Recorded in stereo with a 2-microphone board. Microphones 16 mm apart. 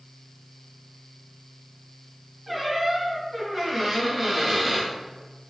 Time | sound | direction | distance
2.5 | a squeak | 15° right (ahead or behind) | 1.8 m